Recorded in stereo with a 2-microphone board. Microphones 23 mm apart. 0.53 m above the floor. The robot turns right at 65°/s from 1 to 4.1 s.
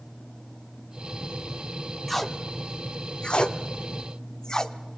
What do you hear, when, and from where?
2.1 s tape being pulled: 5° left (ahead or behind), 0.9 m; by 4.8 s 30° left (ahead or behind), 0.9 m